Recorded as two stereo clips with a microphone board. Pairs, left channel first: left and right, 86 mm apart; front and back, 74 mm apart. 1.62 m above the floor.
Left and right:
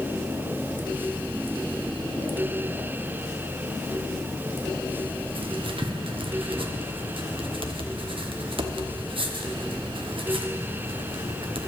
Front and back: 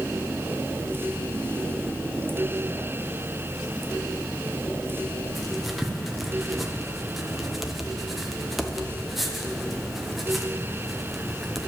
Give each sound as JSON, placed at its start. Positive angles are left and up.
{"t": 5.3, "sound": "writing", "azimuth_deg": -90, "distance_m": 1.0}